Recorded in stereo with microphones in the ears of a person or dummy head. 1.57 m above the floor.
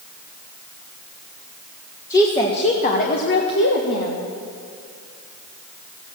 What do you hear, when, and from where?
2.1 s a woman speaking: 20° left (ahead or behind), 1.3 m; by 4.2 s 80° left, 1.6 m